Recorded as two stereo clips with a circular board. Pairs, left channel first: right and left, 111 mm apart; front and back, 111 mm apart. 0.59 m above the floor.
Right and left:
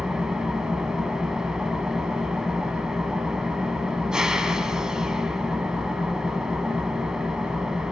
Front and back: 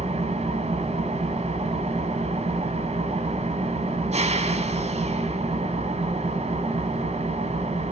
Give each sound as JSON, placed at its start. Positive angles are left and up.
{"t": 0.0, "sound": "an engine running", "azimuth_deg": 175, "distance_m": 2.5}